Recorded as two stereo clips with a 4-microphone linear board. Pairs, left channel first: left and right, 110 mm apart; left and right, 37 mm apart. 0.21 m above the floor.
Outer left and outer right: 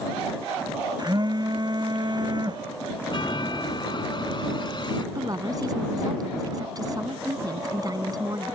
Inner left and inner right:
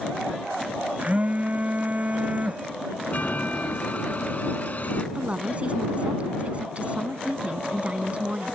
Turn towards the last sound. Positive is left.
turn(degrees=-35)  # may be behind; listen again after turning